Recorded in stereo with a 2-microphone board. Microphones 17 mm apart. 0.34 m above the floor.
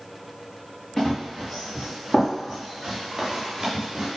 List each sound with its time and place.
1.0 s running footsteps: 20° left (ahead or behind), 1.9 m; by 4.1 s 5° right (ahead or behind), 3 m